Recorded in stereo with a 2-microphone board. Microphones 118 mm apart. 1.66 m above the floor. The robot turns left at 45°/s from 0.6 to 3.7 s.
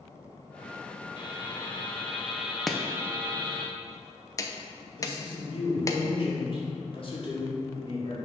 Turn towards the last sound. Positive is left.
turn(degrees=50)  # may be behind; listen again after turning